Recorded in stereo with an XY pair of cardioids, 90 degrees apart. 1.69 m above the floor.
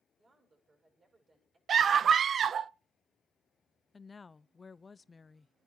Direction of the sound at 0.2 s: 45° right.